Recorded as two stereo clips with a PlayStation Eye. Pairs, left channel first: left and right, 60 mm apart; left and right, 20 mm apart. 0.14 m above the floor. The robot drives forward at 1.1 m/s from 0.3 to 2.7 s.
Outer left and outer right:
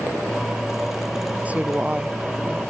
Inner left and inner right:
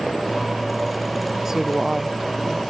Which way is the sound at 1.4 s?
25° right (ahead or behind).